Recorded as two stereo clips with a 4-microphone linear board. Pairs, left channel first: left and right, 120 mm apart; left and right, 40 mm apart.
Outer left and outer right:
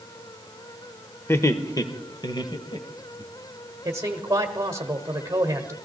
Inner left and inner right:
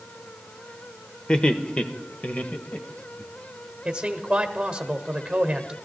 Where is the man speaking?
25° right (ahead or behind), 1.3 m.